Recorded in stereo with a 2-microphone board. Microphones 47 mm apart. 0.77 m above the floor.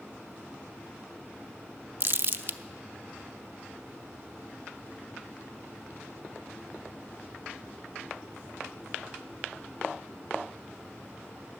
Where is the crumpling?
50° right (ahead or behind), 0.6 m.